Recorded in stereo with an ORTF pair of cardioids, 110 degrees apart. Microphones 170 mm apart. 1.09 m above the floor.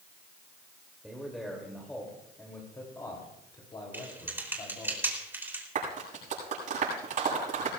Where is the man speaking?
Straight ahead, 2.5 m; by 4.9 s 35° left, 3.5 m.